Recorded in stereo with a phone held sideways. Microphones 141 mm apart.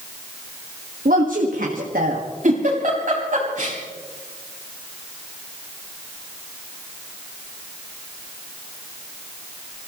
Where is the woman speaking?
80° right, 1.8 m.